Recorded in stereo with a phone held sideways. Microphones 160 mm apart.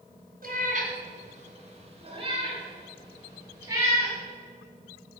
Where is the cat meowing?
65° right (ahead or behind), 2.5 m; by 4.2 s 15° right (ahead or behind), 5 m.